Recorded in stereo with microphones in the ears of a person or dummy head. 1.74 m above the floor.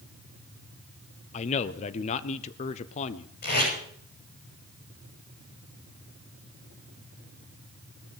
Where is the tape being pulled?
50° left (ahead or behind), 8 m.